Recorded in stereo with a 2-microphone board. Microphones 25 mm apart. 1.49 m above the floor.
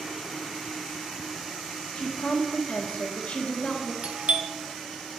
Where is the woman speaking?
75° left (ahead or behind), 1.3 m.